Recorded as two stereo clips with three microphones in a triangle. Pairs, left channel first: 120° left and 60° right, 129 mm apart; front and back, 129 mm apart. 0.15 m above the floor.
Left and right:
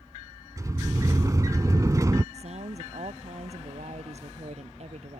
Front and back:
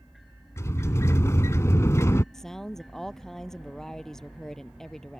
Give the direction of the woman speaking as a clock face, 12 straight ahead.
3 o'clock.